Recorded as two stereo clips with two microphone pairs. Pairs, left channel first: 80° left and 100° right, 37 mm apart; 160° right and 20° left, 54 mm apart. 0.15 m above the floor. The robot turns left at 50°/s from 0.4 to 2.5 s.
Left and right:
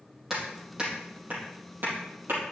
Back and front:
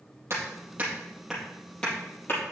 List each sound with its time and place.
0.3 s hammering: 15° right, 4.5 m; by 2.4 s 115° right, 4.5 m